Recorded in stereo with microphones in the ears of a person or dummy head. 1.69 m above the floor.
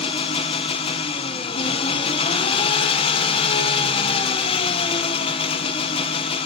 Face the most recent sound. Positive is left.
turn(degrees=35)  # may be behind; listen again after turning